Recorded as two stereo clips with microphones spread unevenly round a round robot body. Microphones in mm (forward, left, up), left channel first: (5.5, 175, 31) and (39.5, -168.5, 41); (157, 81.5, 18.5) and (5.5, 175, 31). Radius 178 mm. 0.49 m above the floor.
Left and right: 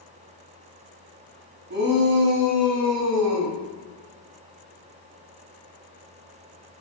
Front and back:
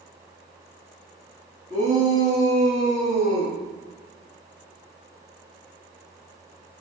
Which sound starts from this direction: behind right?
A shout, at 1.7 s.